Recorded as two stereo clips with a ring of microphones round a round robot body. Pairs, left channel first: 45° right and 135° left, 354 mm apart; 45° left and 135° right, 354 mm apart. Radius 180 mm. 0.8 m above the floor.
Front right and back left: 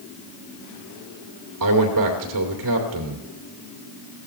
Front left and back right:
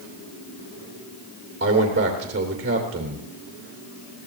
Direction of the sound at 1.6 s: 165° left.